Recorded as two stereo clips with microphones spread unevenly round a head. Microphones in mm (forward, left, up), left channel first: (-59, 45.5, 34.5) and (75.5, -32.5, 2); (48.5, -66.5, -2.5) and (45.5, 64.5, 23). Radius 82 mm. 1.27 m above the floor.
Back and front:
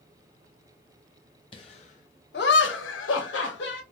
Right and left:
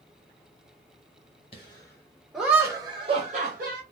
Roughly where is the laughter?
Behind right.